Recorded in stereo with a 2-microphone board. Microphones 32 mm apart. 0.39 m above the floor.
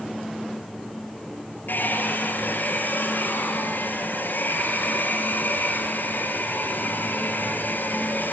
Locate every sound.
1.7 s a hair dryer: 80° left, 6 m